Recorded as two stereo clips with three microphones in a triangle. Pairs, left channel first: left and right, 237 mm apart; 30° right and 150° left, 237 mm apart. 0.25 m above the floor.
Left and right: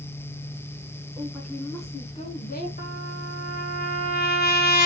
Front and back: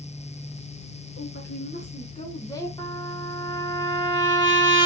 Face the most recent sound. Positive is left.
turn(degrees=45)